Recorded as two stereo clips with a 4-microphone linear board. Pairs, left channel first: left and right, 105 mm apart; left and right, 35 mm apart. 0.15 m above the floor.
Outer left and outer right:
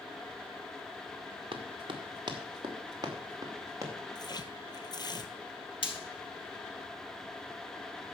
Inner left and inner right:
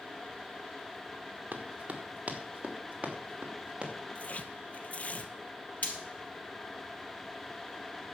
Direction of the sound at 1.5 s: 55° right (ahead or behind).